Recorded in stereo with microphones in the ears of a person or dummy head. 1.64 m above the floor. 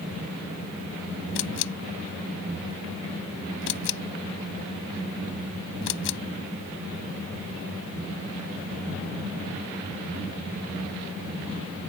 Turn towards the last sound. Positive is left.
turn(degrees=70)  # may be behind; listen again after turning